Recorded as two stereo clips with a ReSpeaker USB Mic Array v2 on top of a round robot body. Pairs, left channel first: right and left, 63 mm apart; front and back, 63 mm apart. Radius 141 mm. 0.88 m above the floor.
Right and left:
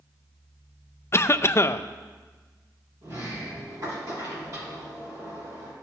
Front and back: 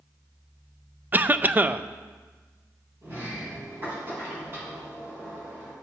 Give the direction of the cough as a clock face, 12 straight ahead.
4 o'clock.